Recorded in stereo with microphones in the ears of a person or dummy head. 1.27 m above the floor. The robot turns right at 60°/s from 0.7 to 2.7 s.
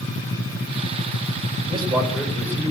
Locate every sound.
1.7 s a man speaking: 35° right, 4 m; by 2.7 s 25° left, 4 m